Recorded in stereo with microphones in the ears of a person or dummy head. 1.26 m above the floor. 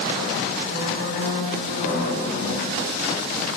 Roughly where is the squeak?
Left.